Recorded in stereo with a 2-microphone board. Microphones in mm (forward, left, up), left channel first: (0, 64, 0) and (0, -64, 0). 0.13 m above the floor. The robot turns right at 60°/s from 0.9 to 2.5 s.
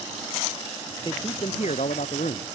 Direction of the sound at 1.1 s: 30° left.